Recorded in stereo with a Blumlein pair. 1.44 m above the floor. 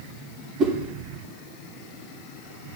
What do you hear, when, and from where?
0.6 s a whoosh: 25° right, 2 m